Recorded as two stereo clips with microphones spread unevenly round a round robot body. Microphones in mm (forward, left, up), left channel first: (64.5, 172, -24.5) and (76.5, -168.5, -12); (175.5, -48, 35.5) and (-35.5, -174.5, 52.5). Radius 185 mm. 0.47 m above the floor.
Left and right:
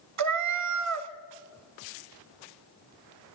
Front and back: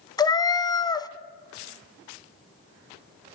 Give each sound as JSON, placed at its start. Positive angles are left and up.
{"t": 0.2, "sound": "a cat meowing", "azimuth_deg": -45, "distance_m": 1.0}